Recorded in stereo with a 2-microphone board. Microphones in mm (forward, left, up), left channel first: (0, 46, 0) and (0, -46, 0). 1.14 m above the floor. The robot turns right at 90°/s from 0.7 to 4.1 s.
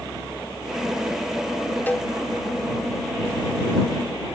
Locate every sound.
1.9 s a cowbell: 20° left (ahead or behind); by 2.1 s centre (ahead or behind)